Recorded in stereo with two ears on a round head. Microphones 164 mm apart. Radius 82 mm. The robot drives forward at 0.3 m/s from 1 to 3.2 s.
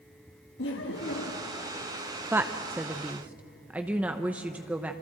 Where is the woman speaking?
10° right (ahead or behind), 0.5 m.